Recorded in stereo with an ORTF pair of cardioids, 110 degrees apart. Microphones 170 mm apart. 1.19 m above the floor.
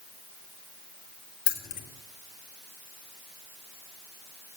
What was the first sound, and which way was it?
Keys jangling, 60° left.